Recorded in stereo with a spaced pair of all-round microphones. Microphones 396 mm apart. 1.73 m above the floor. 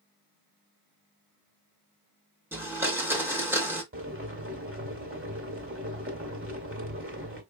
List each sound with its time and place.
2.5 s a blender: 5° right (ahead or behind), 1.5 m
3.9 s boiling: 30° right (ahead or behind), 1.5 m